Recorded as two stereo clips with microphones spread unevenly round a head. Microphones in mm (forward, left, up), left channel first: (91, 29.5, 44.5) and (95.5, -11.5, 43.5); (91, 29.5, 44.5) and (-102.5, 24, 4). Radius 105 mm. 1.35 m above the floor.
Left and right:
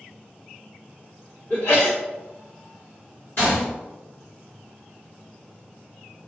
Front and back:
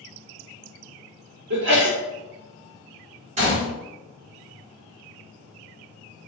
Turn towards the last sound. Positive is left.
turn(degrees=125)